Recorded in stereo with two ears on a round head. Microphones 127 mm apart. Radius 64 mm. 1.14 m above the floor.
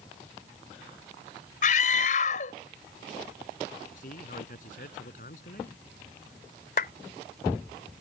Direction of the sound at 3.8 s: 55° left (ahead or behind).